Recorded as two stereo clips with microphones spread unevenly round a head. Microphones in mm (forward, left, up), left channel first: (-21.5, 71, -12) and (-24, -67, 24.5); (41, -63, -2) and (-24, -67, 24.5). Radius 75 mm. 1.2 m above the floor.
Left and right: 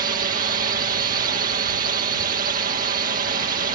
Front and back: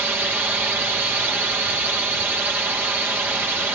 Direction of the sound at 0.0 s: 105° right.